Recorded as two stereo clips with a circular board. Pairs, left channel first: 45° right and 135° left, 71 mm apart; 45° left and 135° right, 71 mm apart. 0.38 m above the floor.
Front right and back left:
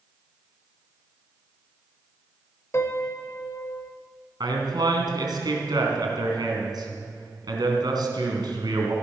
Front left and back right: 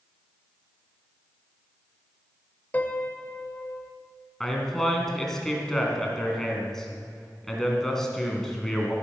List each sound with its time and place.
2.7 s a piano: 10° right, 0.9 m
4.4 s a man speaking: 130° left, 3 m